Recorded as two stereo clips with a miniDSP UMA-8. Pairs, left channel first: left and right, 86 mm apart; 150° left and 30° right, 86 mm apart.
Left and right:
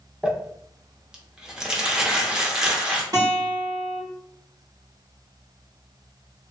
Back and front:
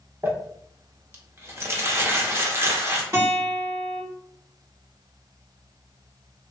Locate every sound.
0.2 s crumpling: 15° right, 0.6 m
3.1 s a guitar: 75° right, 1.7 m